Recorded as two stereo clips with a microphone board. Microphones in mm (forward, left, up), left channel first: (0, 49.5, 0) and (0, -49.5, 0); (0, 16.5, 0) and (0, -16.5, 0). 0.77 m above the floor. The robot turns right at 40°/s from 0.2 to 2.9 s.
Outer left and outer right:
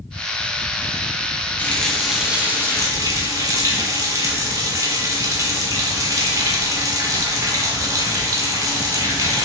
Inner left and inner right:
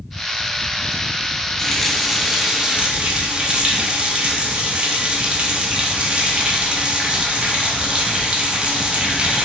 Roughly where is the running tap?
Behind.